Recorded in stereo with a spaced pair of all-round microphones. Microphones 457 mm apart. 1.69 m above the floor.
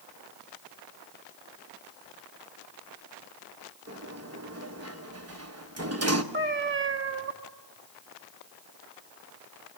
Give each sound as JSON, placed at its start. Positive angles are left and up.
{"t": 3.9, "sound": "a sliding door", "side_deg": -30, "distance_m": 1.2}
{"t": 6.3, "sound": "a cat meowing", "side_deg": -25, "distance_m": 1.8}